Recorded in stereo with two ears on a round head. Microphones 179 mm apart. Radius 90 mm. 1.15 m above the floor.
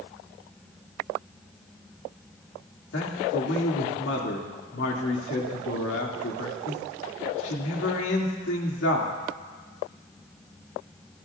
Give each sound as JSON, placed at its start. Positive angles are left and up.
{"t": 2.9, "sound": "a man speaking", "side_deg": 65, "distance_m": 2.5}